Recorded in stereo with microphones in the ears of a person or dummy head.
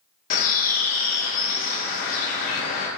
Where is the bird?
50° left (ahead or behind), 2 m.